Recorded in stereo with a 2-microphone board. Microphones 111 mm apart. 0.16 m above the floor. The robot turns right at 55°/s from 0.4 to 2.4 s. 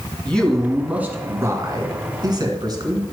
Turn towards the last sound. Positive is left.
turn(degrees=-80)